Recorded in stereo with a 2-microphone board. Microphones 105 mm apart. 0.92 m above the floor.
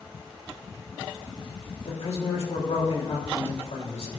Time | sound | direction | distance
1.9 | a man speaking | 80° left | 3 m